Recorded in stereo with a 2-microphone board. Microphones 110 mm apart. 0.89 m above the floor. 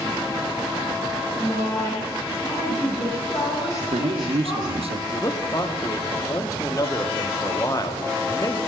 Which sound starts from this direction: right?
A man speaking, at 3.8 s.